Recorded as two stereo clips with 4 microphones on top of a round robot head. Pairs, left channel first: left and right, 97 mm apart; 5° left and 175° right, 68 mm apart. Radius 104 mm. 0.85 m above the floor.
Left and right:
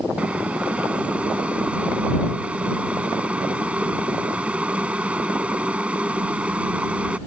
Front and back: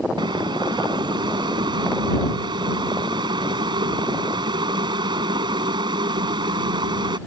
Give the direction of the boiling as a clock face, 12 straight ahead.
6 o'clock.